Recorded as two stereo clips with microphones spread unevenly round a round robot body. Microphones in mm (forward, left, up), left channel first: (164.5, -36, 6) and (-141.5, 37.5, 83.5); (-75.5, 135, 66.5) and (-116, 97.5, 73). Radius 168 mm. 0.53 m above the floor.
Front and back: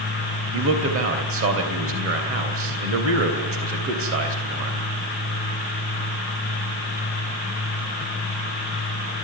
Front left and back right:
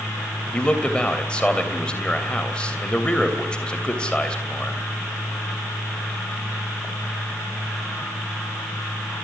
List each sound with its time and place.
0.5 s a man speaking: 115° left, 3 m